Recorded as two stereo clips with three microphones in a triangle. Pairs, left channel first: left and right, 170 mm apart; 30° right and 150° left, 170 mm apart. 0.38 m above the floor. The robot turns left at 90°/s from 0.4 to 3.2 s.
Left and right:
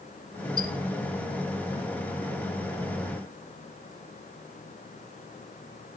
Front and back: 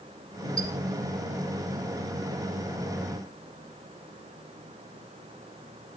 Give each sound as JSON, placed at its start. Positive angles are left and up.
{"t": 0.6, "sound": "a squeak", "azimuth_deg": -50, "distance_m": 1.4}